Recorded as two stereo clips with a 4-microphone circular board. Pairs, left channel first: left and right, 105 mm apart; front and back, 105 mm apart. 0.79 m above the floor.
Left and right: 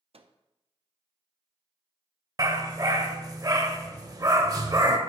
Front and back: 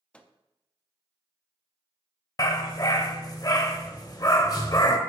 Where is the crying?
No crying in this recording.